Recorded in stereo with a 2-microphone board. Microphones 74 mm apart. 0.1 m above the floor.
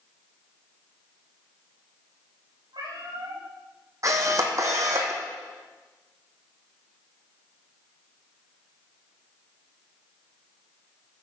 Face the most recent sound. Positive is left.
turn(degrees=-50)  # may be behind; listen again after turning